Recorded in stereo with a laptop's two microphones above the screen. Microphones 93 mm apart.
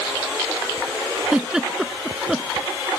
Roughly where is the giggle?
Centre.